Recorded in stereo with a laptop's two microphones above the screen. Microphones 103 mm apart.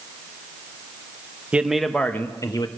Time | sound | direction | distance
1.5 | a man speaking | 15° right (ahead or behind) | 0.7 m